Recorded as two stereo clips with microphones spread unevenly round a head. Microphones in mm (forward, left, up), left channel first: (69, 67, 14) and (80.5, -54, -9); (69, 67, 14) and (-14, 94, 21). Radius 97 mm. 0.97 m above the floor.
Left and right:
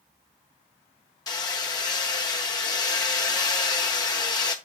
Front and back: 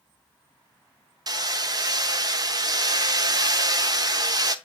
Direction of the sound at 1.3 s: 140° left.